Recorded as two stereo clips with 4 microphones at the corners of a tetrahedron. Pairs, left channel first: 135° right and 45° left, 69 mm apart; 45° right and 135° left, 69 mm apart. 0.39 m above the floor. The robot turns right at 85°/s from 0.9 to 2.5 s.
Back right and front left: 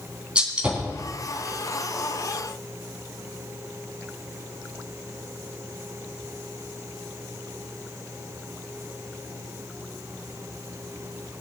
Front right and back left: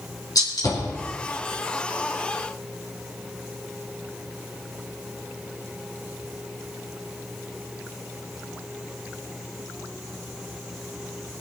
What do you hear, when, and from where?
0.3 s a gunshot: 30° right, 3.5 m